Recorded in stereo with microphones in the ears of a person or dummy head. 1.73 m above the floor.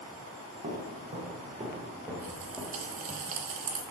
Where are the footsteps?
40° right (ahead or behind), 2.5 m; by 3.2 s 10° left (ahead or behind), 2.0 m.